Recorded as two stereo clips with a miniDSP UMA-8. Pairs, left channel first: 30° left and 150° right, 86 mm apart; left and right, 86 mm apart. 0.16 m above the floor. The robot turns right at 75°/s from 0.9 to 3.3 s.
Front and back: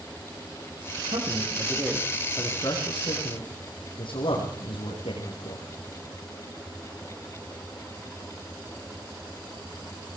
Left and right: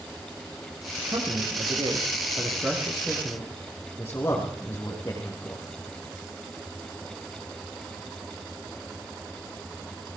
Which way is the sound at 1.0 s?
150° right.